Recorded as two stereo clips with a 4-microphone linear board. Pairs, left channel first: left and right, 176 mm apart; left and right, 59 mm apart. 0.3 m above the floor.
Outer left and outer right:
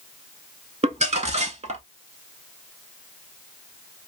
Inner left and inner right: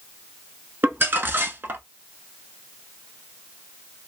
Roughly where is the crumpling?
Right.